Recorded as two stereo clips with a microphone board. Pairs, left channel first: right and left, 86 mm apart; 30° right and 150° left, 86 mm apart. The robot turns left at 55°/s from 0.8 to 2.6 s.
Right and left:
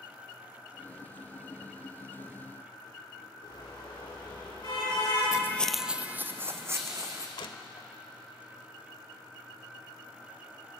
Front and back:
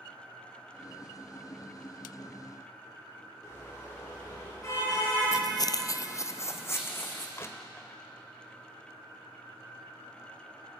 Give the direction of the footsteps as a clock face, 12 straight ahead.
2 o'clock.